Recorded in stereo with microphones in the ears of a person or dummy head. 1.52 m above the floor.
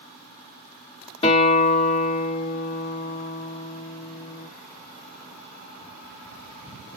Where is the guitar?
30° left (ahead or behind), 2 m.